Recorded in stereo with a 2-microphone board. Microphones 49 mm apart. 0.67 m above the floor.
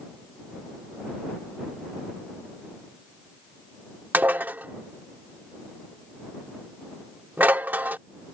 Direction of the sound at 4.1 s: 40° right (ahead or behind).